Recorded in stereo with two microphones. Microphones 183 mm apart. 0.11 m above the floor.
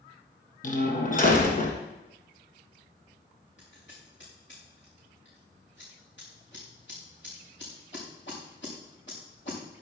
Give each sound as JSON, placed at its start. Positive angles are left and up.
{"t": 0.6, "sound": "a door slam", "side_deg": 50, "distance_m": 2.5}
{"t": 3.6, "sound": "scissors", "side_deg": 85, "distance_m": 6.5}